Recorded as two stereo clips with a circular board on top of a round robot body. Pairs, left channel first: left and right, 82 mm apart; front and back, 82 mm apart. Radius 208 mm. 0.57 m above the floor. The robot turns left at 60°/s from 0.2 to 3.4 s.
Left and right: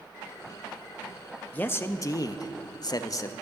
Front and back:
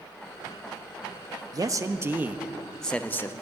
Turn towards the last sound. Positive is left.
turn(degrees=45)